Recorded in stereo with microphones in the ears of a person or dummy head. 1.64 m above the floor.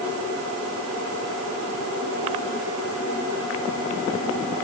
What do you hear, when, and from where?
Only background noise.